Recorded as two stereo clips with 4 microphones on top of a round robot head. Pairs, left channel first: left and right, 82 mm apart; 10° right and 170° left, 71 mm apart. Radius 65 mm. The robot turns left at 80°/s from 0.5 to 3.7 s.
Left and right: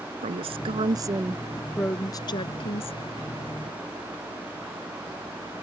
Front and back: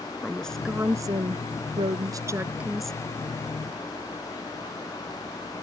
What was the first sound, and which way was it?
A woman speaking, 95° right.